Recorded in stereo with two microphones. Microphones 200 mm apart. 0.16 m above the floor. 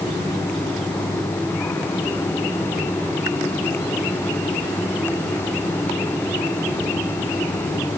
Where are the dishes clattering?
No dishes clattering in this recording.